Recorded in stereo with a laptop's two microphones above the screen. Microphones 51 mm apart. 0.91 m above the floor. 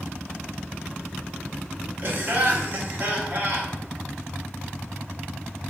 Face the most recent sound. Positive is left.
turn(degrees=-40)  # may be behind; listen again after turning